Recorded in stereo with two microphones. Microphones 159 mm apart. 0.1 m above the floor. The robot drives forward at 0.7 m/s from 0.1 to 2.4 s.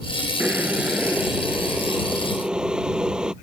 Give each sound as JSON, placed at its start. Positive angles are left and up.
{"t": 0.4, "sound": "boiling", "side_deg": -10}